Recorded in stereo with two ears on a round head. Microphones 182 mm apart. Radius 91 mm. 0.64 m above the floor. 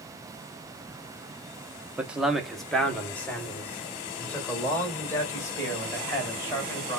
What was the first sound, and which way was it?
A man speaking, 10° right (ahead or behind).